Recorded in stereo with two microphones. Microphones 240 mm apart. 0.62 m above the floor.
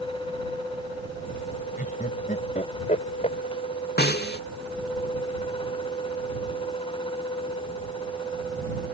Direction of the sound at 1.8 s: 35° left (ahead or behind).